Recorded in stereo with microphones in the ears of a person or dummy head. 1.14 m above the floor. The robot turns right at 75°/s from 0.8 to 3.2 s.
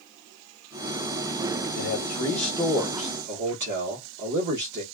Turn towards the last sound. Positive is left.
turn(degrees=-125)